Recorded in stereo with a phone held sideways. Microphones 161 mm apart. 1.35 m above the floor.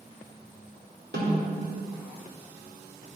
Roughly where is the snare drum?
Right.